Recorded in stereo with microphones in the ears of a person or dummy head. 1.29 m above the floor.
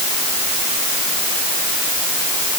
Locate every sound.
Only background noise.